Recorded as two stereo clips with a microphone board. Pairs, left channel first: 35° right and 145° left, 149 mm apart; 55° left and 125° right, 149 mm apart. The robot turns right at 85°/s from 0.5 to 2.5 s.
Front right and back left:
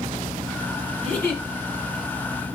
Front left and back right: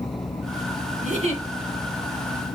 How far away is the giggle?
About 2.5 m.